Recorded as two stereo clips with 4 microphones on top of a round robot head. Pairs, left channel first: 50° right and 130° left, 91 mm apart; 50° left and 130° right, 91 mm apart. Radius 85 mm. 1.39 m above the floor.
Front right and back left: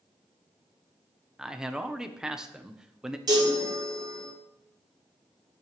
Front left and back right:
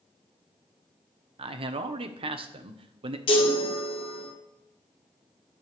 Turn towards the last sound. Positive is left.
turn(degrees=75)